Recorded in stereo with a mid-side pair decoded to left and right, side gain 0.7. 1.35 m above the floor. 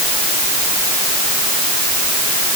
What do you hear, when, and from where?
Only background noise.